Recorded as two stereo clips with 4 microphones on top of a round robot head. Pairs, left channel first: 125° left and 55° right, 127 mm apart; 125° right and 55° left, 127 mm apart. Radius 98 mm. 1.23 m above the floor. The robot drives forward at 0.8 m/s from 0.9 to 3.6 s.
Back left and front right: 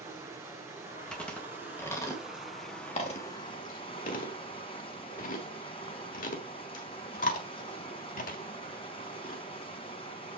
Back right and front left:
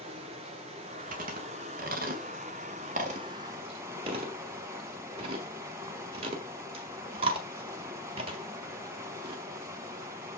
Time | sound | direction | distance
0.0 | running water | 15° left | 2.5 m
1.1 | chewing | 40° left | 2.5 m